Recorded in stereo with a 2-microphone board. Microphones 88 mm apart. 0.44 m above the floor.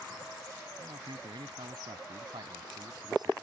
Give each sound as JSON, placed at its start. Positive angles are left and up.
{"t": 0.8, "sound": "a man speaking", "side_deg": -65}